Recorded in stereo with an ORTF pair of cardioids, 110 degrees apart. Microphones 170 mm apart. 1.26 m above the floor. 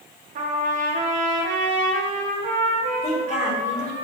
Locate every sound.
0.3 s a trumpet: 50° right, 1.3 m
3.0 s a woman speaking: 45° left, 3 m